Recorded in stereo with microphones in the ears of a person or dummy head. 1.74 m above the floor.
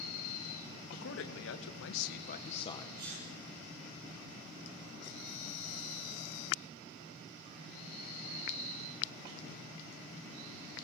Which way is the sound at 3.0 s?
50° right (ahead or behind).